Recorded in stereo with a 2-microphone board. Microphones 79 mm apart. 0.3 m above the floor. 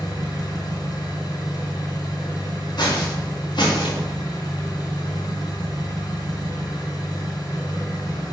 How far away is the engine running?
About 1.8 m.